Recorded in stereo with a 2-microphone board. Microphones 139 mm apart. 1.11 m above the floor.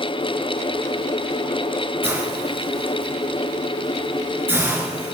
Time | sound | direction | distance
2.0 | a hiss | 15° right (ahead or behind) | 4.5 m